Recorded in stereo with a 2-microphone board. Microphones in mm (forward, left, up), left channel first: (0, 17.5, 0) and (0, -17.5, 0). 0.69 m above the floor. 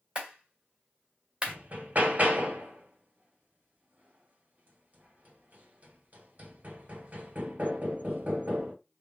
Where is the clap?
30° right (ahead or behind), 1.7 m.